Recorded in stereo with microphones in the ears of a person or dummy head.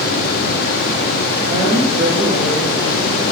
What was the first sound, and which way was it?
A woman speaking, 20° right (ahead or behind).